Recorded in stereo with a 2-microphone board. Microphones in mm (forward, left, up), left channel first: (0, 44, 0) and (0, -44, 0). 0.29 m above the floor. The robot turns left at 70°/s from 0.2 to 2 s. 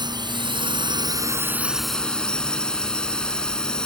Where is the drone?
65° right; by 3.9 s 170° left.